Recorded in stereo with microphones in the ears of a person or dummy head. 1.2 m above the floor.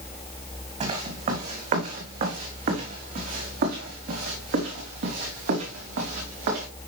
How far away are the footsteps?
About 4 m.